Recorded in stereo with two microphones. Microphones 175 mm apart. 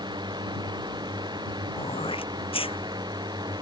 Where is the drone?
25° right (ahead or behind).